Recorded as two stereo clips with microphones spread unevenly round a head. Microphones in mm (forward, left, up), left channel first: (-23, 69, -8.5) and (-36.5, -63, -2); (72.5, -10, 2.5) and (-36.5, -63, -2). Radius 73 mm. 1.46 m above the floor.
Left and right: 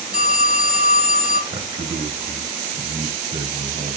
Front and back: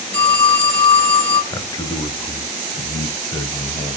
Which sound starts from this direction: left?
A phone ringing, at 0.1 s.